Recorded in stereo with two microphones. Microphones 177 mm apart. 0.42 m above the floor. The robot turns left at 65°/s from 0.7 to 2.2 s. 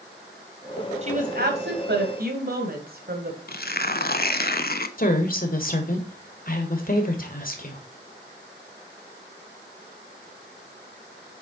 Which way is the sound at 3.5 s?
55° left (ahead or behind).